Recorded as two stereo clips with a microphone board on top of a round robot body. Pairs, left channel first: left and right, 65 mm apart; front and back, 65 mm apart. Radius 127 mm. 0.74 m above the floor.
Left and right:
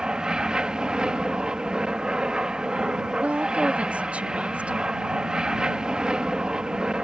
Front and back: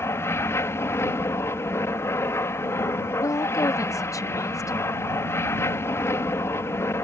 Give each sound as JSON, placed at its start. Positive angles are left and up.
{"t": 0.0, "sound": "an aircraft", "azimuth_deg": -15}
{"t": 3.2, "sound": "a woman speaking", "azimuth_deg": -20}